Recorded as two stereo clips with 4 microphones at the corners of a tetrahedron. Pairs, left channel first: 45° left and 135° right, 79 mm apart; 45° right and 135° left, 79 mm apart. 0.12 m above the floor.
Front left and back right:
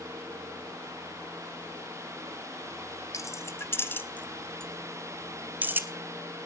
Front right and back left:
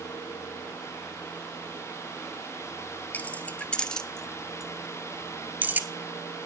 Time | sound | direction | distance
3.1 | keys jangling | 15° left | 1.3 m